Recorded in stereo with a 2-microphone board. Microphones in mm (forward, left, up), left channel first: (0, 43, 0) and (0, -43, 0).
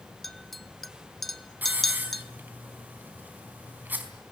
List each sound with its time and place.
0.2 s a clink: centre (ahead or behind), 1.2 m
1.6 s a hiss: 20° right (ahead or behind), 4 m